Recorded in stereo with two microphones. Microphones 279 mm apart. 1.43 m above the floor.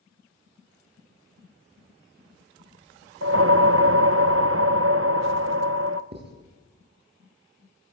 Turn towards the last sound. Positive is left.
turn(degrees=-35)  # may be behind; listen again after turning